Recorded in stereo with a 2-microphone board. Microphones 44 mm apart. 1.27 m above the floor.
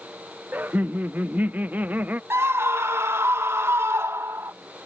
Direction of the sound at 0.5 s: 40° right (ahead or behind).